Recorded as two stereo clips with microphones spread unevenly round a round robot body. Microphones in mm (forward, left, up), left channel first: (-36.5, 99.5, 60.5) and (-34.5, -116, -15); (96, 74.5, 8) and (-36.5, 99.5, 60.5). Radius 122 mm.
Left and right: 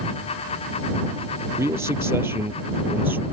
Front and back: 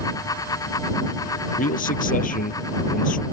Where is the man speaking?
10° right; by 3.2 s 5° right.